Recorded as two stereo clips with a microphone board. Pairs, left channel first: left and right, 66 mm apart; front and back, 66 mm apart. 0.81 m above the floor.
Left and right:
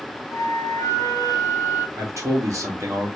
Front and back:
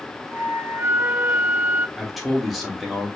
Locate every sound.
0.3 s a flute: 125° left, 1.0 m
2.0 s a man speaking: 90° right, 1.5 m